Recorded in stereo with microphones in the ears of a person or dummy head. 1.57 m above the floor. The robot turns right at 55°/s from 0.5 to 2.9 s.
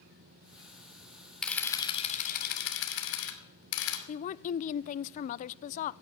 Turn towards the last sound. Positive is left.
turn(degrees=40)  # may be behind; listen again after turning